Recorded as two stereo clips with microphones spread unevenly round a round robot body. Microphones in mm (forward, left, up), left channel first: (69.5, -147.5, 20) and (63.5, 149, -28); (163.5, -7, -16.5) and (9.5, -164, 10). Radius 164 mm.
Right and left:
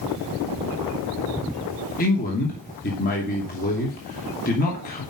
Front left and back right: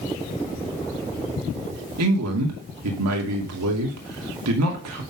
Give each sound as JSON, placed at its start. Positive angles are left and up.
{"t": 2.0, "sound": "a man speaking", "azimuth_deg": -155, "distance_m": 2.5}